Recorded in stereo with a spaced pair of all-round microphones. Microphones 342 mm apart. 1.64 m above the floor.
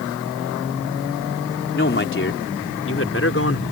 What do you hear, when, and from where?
1.7 s a man speaking: 35° left (ahead or behind); by 3.6 s 40° left (ahead or behind)